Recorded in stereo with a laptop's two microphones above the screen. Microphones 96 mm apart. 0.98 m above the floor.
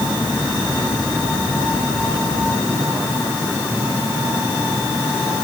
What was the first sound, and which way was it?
Only background noise.